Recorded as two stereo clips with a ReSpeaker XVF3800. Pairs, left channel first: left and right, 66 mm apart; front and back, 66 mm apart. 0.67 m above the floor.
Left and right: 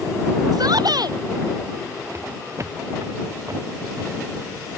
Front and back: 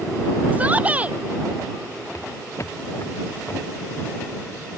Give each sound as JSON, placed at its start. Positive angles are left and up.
{"t": 0.5, "sound": "a shout", "azimuth_deg": -110}
{"t": 2.1, "sound": "footsteps", "azimuth_deg": -45}